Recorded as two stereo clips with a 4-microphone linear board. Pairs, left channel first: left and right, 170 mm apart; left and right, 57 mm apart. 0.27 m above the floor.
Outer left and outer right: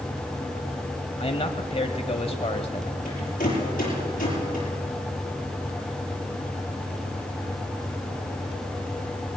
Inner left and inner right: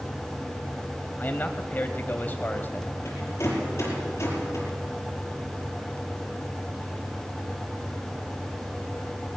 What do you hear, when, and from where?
1.2 s a man speaking: 35° left (ahead or behind), 1.2 m
3.0 s a rattle: 50° left (ahead or behind), 7.5 m